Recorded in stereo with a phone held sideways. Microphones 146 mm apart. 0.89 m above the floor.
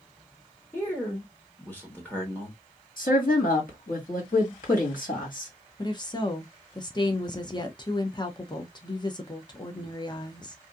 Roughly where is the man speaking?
Centre.